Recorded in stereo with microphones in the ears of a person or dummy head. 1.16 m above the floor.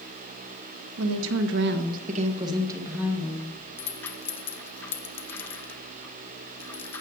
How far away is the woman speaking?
About 1.0 m.